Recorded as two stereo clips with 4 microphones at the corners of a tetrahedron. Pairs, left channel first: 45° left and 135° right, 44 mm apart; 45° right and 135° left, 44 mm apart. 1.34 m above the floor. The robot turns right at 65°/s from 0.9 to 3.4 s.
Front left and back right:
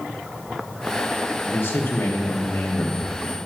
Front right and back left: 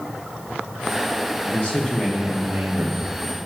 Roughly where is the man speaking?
Ahead.